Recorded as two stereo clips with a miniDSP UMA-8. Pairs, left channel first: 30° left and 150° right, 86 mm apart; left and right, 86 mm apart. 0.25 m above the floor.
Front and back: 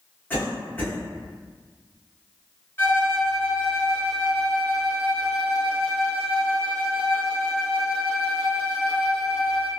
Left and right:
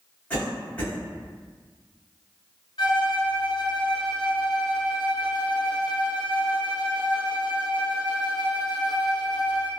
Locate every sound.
0.3 s a cough: 50° left, 1.6 m
2.8 s a violin: 85° left, 1.0 m